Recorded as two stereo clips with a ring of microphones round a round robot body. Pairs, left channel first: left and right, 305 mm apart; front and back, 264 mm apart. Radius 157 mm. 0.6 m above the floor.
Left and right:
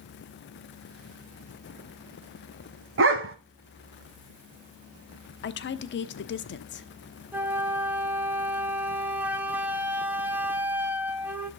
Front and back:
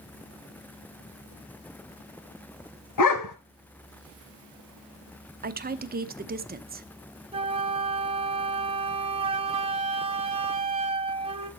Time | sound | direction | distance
3.0 | a dog barking | 35° right | 1.1 m
5.4 | a woman speaking | 135° left | 1.0 m
7.3 | a flute | 165° right | 1.0 m